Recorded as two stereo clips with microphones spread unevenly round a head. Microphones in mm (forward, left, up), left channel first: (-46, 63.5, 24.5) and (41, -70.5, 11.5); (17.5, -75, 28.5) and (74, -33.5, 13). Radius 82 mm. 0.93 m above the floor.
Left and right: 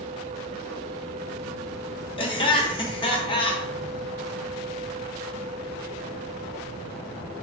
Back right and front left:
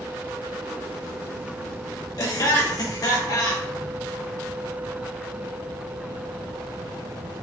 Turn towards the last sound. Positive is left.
turn(degrees=175)